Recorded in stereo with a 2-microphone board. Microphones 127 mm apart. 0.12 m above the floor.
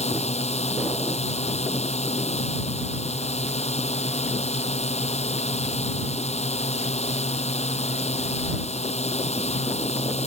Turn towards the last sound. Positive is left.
turn(degrees=60)  # may be behind; listen again after turning